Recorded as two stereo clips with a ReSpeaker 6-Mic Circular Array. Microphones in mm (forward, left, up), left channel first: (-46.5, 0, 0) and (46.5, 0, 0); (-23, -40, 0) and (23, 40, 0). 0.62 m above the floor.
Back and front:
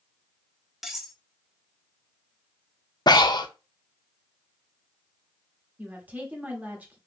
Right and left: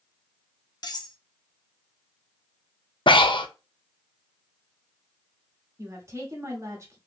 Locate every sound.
0.8 s cutlery clinking: 90° right, 0.7 m
3.1 s breathing: 145° right, 0.5 m
5.8 s a woman speaking: 55° left, 1.2 m